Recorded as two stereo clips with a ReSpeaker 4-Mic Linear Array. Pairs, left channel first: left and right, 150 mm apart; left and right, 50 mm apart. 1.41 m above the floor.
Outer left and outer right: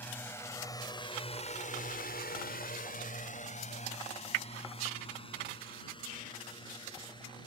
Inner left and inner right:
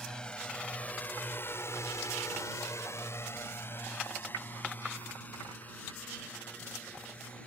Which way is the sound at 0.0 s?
10° left (ahead or behind).